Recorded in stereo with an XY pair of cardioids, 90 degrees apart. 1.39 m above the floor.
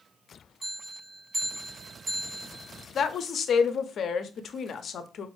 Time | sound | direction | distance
0.6 | a bell | 60° right | 1.1 m
3.0 | a woman speaking | 60° left | 0.5 m